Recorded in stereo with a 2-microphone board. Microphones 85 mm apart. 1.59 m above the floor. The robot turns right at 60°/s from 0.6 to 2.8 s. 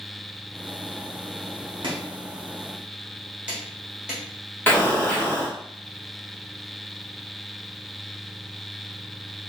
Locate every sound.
1.8 s chopping: 70° right (ahead or behind), 1.5 m; by 4.2 s 10° right (ahead or behind), 1.5 m
4.7 s an explosion: 20° left (ahead or behind), 1.2 m